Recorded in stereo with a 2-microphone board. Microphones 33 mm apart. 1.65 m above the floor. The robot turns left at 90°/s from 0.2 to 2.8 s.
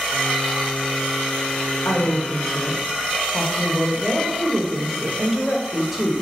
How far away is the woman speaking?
About 1.4 m.